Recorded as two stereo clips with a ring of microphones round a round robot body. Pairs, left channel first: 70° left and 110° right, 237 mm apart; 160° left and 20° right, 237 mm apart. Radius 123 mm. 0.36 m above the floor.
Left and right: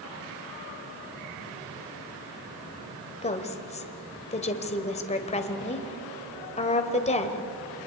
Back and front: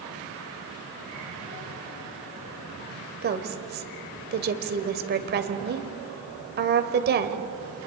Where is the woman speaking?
10° left, 1.7 m.